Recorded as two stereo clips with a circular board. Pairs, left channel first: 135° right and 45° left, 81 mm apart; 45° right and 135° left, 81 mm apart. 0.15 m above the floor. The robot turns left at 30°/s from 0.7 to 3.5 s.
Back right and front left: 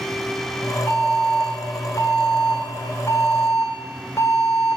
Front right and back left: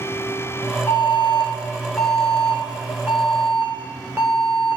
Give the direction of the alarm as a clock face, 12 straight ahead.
3 o'clock.